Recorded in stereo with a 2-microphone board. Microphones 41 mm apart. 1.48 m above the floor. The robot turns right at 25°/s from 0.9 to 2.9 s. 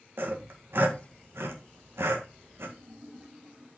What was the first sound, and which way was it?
Sawing, 60° right (ahead or behind).